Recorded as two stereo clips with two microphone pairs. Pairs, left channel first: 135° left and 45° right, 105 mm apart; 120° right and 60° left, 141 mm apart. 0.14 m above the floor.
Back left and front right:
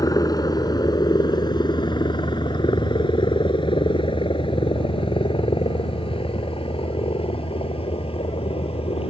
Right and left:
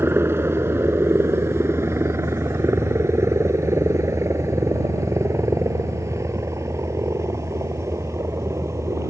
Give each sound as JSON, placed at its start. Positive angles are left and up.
{"t": 0.0, "sound": "a helicopter", "azimuth_deg": 125}